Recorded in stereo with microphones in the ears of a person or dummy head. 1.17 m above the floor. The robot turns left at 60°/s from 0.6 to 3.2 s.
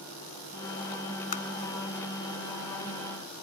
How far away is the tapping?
About 0.9 m.